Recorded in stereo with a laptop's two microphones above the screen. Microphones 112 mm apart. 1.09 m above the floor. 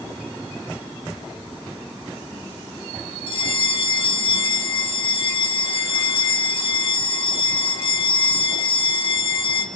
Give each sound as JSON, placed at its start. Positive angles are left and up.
{"t": 3.3, "sound": "a bell", "side_deg": 55, "distance_m": 1.7}